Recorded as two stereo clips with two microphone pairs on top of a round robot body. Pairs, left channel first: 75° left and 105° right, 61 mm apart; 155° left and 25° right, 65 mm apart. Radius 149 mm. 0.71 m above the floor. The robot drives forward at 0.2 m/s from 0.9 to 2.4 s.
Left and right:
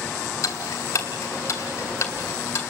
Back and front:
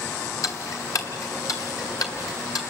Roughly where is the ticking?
Behind left.